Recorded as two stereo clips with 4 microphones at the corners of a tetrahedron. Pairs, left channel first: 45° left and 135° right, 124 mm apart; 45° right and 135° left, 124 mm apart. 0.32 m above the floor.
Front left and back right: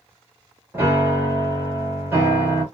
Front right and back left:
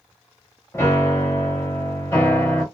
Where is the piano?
90° right, 1.5 m.